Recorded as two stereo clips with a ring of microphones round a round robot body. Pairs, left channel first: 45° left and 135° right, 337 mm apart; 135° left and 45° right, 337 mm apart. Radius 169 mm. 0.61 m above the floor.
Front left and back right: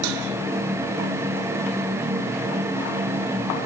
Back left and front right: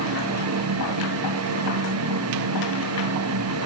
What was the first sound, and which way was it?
Only background noise.